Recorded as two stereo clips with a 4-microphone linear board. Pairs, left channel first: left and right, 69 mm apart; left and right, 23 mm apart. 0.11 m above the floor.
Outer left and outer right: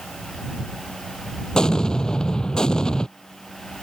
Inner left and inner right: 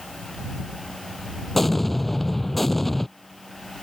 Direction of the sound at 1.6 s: 10° left (ahead or behind).